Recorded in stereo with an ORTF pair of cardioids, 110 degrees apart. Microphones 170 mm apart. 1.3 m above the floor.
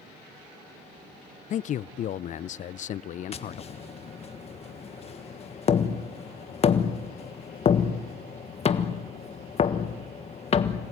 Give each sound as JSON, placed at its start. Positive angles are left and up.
{"t": 1.5, "sound": "a man speaking", "azimuth_deg": 50, "distance_m": 0.5}
{"t": 3.3, "sound": "tapping", "azimuth_deg": 40, "distance_m": 1.4}